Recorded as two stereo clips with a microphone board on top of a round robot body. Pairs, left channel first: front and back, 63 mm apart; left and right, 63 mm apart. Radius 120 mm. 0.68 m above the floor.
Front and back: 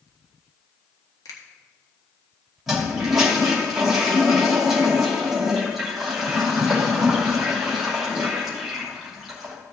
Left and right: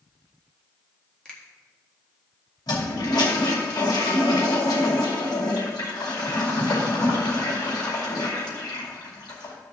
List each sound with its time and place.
1.2 s a finger snap: 15° left, 1.8 m
2.7 s a toilet flushing: 95° left, 2.5 m